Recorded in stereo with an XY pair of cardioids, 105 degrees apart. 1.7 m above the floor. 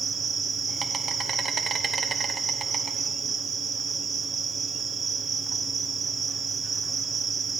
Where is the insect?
40° right, 1.0 m.